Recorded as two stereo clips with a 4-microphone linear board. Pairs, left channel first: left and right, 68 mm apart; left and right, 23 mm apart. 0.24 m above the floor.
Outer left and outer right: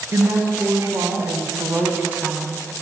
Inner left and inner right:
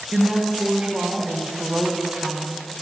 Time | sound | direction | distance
0.1 | a woman speaking | 50° right (ahead or behind) | 2.5 m